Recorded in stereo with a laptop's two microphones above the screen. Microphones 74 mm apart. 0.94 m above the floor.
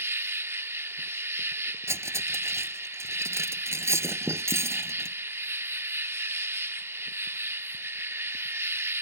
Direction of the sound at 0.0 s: 35° right (ahead or behind).